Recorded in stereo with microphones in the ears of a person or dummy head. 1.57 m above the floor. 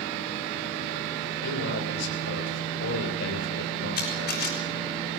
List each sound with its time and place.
1.4 s a man speaking: 75° left (ahead or behind), 7.5 m
4.0 s a camera shutter: 55° left (ahead or behind), 4.5 m